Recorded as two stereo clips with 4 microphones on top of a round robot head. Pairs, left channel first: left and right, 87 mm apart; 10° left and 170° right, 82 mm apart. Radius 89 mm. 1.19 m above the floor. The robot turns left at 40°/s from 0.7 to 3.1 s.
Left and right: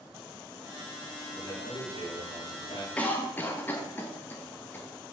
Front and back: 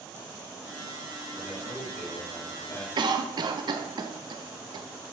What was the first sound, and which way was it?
A man speaking, 95° left.